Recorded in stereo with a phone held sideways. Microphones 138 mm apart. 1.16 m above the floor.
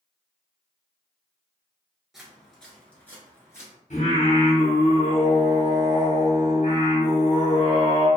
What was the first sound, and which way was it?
Footsteps, centre (ahead or behind).